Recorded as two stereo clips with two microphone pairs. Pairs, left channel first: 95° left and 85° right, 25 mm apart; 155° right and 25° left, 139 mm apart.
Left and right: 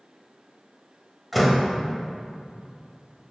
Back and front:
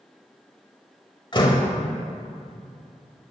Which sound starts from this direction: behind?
A door slam, at 1.3 s.